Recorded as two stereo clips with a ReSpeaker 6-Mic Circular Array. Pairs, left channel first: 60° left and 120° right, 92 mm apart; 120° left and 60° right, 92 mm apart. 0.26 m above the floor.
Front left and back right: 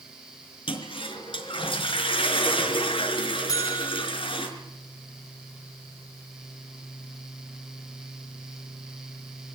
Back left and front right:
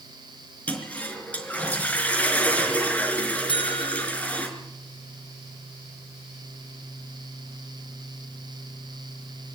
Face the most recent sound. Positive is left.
turn(degrees=110)